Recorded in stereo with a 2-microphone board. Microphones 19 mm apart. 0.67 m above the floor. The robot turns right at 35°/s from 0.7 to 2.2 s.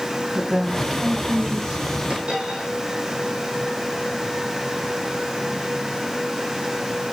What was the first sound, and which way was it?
A woman speaking, 155° right.